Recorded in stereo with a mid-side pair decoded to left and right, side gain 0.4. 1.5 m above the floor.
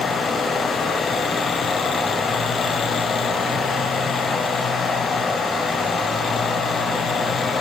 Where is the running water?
50° left, 4 m.